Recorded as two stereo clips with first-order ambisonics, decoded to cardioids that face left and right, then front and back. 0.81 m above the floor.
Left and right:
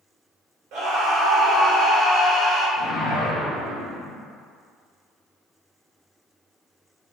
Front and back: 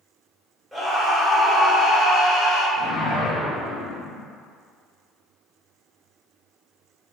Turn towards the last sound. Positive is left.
turn(degrees=40)